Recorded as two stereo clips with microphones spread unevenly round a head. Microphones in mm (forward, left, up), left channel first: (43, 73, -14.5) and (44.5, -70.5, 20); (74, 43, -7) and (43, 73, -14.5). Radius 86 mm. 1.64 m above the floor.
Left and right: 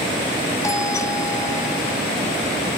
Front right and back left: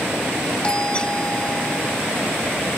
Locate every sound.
0.6 s a doorbell: 20° left